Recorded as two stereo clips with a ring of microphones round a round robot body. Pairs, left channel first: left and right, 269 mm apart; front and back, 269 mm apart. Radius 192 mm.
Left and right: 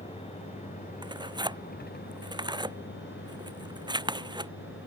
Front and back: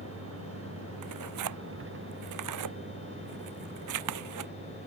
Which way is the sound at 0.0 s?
155° left.